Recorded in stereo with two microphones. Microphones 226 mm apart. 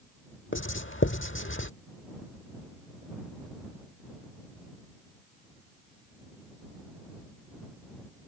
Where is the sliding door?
I don't hear a sliding door.